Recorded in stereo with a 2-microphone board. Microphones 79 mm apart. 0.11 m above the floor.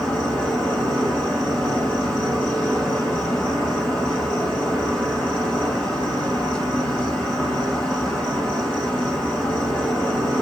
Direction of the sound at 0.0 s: 15° left (ahead or behind).